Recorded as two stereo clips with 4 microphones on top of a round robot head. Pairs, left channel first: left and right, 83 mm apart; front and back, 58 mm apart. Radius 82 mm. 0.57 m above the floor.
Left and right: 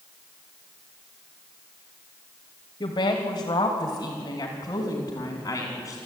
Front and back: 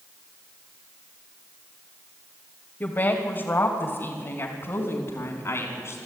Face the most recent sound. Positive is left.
turn(degrees=30)